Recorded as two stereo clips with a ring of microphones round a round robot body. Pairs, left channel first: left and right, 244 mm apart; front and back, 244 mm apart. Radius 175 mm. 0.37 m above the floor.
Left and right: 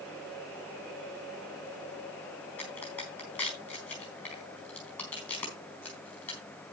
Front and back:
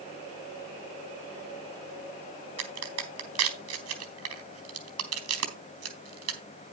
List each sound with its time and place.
2.6 s a crack: 175° left, 3.5 m